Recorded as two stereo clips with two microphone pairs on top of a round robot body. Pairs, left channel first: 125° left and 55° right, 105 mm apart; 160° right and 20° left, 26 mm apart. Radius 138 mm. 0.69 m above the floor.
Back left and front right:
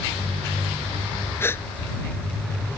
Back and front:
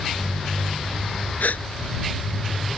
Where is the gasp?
165° right.